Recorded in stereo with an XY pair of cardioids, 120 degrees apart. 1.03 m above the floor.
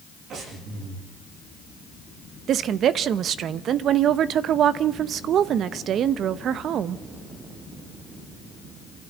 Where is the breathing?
60° right, 8 m.